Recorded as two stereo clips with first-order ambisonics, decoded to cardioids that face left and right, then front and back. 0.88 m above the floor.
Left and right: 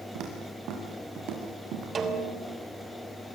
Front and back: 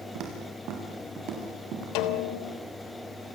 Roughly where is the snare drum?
Ahead right.